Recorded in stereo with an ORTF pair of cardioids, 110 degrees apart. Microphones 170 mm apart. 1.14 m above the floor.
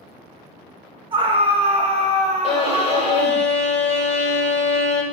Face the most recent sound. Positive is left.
turn(degrees=40)